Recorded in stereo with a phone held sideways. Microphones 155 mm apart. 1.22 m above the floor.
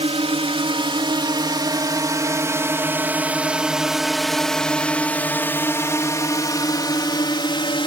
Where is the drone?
40° right (ahead or behind); by 7.9 s 35° left (ahead or behind).